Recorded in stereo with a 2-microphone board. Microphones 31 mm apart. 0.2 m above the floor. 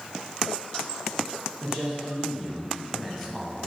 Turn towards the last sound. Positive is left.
turn(degrees=5)  # may be behind; listen again after turning